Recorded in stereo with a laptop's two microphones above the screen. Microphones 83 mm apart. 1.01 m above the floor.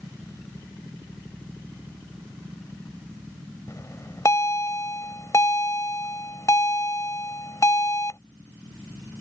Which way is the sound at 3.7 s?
40° left (ahead or behind).